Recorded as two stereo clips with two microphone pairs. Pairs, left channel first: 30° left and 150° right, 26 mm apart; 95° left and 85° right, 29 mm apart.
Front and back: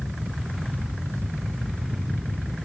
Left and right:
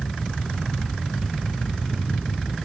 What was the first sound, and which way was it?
Only background noise.